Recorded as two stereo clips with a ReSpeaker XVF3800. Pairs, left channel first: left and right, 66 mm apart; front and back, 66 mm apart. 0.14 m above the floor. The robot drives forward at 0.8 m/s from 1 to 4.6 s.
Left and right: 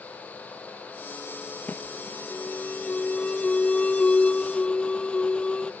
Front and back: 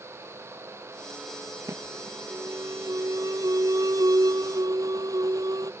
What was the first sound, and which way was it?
An alarm, 150° left.